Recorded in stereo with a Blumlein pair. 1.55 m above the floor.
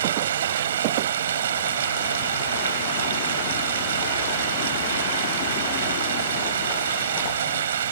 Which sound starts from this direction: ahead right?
Running water, at 0.0 s.